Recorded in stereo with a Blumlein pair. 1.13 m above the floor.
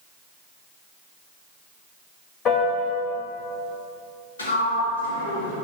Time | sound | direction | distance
2.5 | a piano | 35° left | 2 m
4.4 | a sliding door | 70° left | 3 m